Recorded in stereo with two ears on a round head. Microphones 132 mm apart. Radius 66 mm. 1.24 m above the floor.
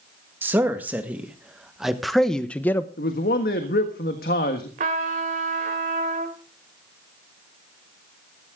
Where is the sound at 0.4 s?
15° right (ahead or behind), 1.9 m; by 2.9 s 15° left (ahead or behind), 0.8 m.